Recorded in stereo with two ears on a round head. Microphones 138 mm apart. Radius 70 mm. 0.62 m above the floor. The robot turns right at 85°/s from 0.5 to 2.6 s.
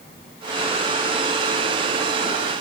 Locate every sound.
Only background noise.